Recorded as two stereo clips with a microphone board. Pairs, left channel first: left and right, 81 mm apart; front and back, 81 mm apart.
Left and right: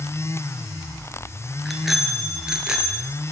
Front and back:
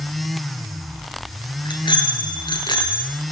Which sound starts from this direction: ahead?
A bicycle bell, at 1.6 s.